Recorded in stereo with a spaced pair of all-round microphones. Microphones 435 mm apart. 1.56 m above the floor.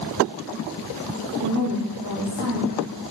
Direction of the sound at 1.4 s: 45° right (ahead or behind).